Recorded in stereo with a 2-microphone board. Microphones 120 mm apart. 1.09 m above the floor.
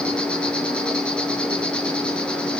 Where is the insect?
10° left (ahead or behind), 7 m.